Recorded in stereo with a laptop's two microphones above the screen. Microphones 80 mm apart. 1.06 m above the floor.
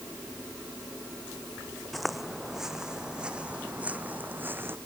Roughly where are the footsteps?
Centre.